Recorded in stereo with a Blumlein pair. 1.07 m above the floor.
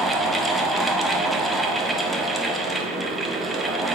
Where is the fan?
5° right, 0.7 m.